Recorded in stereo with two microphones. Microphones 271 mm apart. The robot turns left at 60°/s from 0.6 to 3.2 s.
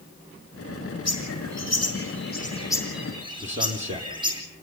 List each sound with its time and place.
1.1 s a bird: 110° left, 4.5 m; by 4.4 s 15° right, 4.5 m
3.4 s a man speaking: 25° right (ahead or behind), 5.5 m